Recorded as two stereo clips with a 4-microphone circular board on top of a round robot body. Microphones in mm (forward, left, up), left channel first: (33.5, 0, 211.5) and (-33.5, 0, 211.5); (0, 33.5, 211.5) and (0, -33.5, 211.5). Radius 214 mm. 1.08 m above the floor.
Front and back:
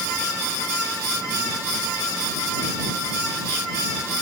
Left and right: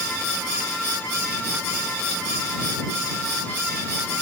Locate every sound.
Only background noise.